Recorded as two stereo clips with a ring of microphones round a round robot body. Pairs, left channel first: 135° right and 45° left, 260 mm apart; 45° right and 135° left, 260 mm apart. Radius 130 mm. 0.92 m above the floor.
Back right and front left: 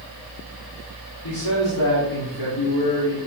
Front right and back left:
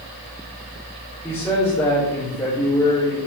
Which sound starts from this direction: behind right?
A man speaking, at 1.2 s.